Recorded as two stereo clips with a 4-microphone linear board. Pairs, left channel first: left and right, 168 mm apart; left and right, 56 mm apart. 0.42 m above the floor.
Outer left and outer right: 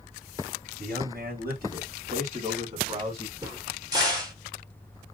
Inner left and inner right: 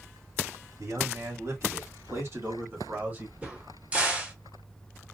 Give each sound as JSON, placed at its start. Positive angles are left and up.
{"t": 0.8, "sound": "a man speaking", "side_deg": -70, "distance_m": 2.5}
{"t": 3.4, "sound": "a crack", "side_deg": -20, "distance_m": 1.5}